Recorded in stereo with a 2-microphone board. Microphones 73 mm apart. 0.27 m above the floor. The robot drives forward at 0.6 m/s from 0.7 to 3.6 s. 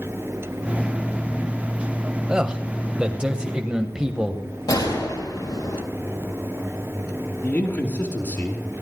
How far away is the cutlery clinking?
I don't hear cutlery clinking.